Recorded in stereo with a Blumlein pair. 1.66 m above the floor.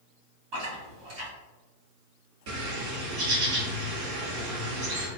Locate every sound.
0.5 s chewing: 45° right, 1.5 m
2.5 s a bird: 50° right, 1.2 m